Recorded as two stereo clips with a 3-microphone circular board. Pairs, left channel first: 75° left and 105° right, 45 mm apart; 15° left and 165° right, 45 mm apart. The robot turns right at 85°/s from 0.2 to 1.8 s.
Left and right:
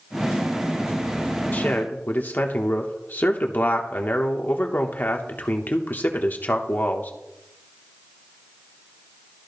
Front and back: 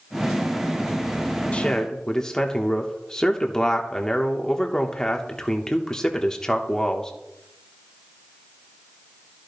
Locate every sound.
1.5 s a man speaking: 60° left, 1.0 m; by 7.1 s 85° left, 1.0 m